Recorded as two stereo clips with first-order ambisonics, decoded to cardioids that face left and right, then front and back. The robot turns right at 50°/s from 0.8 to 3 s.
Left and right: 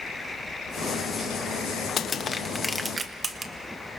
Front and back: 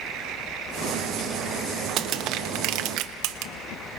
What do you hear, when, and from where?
2.0 s crushing: 145° left, 1.0 m; by 3.5 s 165° right, 1.0 m